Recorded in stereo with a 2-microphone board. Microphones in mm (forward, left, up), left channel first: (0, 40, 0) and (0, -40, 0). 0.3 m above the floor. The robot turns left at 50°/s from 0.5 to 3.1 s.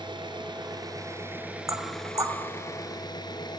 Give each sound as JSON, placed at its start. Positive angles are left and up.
{"t": 0.0, "sound": "an engine running", "azimuth_deg": -110, "distance_m": 2.0}
{"t": 1.7, "sound": "knocking", "side_deg": -40, "distance_m": 1.6}